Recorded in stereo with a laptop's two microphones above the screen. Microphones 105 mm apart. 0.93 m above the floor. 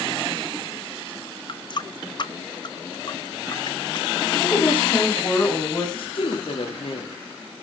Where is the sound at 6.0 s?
55° left (ahead or behind), 2 m.